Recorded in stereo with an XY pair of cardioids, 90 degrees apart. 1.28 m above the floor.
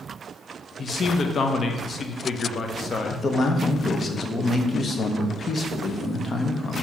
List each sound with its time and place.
0.8 s a man speaking: 45° left, 0.7 m
3.1 s a man speaking: 40° left, 1.0 m